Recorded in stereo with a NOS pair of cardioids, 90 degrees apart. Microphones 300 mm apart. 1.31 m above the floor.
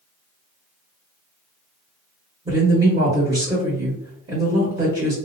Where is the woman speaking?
20° right, 1.4 m.